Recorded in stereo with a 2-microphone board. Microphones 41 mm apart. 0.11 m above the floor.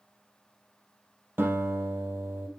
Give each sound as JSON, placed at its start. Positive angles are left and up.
{"t": 1.4, "sound": "a guitar", "side_deg": -60, "distance_m": 3.5}